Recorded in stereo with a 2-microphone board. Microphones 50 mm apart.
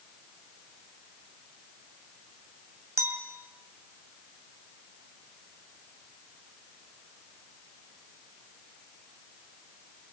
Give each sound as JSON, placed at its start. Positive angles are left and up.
{"t": 3.0, "sound": "a clink", "side_deg": -60, "distance_m": 2.0}